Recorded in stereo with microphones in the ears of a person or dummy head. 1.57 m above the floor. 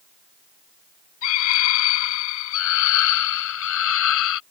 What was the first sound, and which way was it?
A scream, 85° left.